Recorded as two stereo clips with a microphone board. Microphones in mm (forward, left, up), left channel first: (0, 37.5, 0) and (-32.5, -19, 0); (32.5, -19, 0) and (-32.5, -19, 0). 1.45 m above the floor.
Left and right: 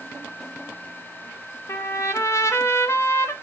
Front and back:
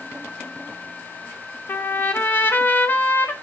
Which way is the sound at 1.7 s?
45° left.